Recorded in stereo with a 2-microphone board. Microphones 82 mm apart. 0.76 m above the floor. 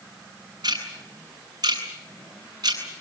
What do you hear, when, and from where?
0.6 s ticking: 55° right (ahead or behind), 8 m